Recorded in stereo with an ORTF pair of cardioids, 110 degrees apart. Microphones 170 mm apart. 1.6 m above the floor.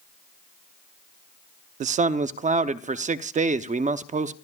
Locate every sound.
1.8 s a man speaking: 50° right, 0.9 m